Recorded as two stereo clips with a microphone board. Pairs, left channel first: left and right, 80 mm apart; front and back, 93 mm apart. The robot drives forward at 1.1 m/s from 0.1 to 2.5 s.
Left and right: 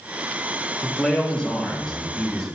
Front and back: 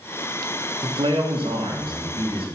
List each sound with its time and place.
0.8 s a man speaking: 165° left, 1.2 m; by 2.5 s 175° left, 3 m